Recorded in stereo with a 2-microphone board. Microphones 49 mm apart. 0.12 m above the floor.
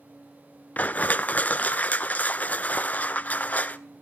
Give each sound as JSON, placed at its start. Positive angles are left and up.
{"t": 0.8, "sound": "crushing", "side_deg": 35, "distance_m": 0.5}